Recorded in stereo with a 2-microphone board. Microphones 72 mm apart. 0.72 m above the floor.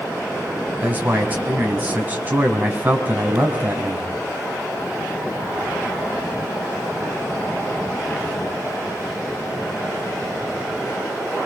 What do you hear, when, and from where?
0.8 s a man speaking: 25° right (ahead or behind), 4.5 m